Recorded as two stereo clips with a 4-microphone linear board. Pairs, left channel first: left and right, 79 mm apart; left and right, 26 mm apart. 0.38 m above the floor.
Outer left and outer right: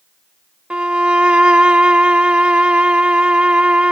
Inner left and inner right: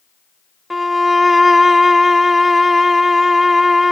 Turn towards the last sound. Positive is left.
turn(degrees=-15)  # may be behind; listen again after turning